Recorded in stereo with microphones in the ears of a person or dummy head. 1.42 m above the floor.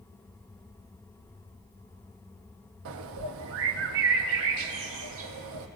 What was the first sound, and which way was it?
A bird, 70° right (ahead or behind).